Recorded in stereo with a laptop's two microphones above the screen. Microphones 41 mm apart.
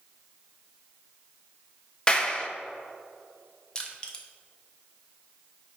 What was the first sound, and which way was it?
A clap, 20° left (ahead or behind).